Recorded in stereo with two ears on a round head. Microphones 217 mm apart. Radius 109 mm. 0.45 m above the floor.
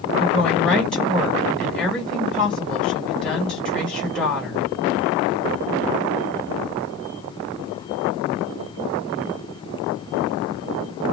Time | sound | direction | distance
0.2 | a woman speaking | 5° left (ahead or behind) | 2.5 m